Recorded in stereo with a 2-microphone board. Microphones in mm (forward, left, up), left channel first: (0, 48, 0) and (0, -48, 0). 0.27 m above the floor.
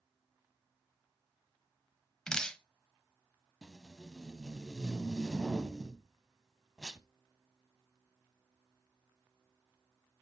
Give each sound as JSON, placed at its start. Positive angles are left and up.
{"t": 2.3, "sound": "dripping", "side_deg": 10, "distance_m": 0.9}
{"t": 3.6, "sound": "tape being pulled", "side_deg": -5, "distance_m": 0.6}